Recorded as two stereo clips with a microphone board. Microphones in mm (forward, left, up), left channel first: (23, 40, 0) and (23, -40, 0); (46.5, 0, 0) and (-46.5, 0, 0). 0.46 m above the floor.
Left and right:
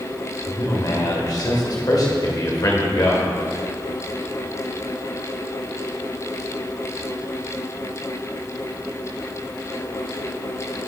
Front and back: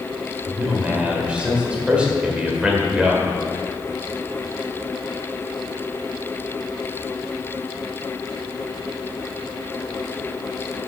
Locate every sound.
0.5 s a man speaking: 105° left, 1.8 m